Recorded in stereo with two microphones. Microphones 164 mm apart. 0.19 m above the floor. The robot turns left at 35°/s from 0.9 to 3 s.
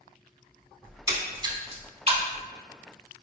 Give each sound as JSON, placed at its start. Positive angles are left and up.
{"t": 0.8, "sound": "a splash", "side_deg": -15, "distance_m": 0.5}